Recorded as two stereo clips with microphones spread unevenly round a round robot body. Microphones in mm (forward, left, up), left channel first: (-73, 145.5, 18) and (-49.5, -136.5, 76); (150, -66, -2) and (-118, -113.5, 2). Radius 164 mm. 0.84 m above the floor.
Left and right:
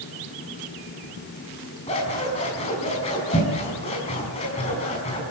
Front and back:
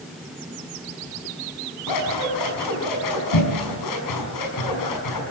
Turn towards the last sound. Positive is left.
turn(degrees=20)